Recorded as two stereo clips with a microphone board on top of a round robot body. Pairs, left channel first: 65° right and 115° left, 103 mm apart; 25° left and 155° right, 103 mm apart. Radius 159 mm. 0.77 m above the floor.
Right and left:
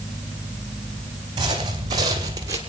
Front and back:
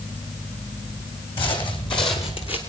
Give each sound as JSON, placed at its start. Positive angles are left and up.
{"t": 1.4, "sound": "footsteps", "azimuth_deg": 65, "distance_m": 2.5}